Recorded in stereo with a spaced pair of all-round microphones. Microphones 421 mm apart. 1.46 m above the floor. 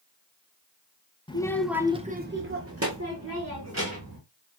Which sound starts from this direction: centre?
A child speaking, at 1.3 s.